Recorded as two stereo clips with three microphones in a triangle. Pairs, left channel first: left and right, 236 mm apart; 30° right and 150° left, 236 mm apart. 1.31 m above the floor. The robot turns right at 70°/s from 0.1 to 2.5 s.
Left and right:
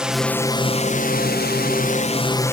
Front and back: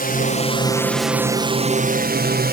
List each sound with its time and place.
0.0 s a drone: 5° right; by 2.5 s 165° left